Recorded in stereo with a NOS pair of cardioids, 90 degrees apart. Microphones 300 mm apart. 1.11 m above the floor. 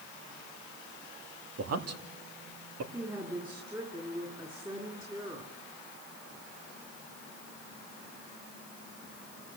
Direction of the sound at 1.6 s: 55° right.